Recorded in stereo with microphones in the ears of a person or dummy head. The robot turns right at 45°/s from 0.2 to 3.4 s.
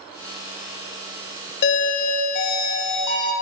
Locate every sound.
1.6 s a doorbell: 60° left, 0.9 m; by 3.3 s 135° left, 0.9 m